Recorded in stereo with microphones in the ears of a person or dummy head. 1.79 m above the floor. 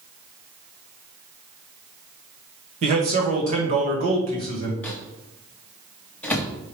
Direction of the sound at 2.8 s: 45° right (ahead or behind).